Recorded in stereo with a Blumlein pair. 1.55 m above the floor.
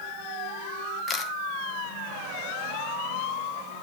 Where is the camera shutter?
25° left, 0.8 m.